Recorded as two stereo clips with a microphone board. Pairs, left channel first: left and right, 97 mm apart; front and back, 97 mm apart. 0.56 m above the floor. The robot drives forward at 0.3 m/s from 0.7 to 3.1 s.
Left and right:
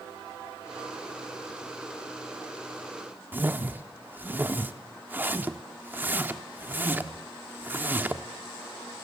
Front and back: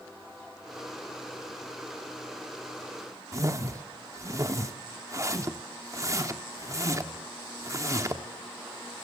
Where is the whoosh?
150° right, 1.3 m.